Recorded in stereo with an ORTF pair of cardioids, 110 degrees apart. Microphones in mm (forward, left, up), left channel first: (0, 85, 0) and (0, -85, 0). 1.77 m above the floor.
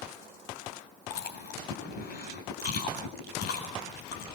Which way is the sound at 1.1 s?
65° left.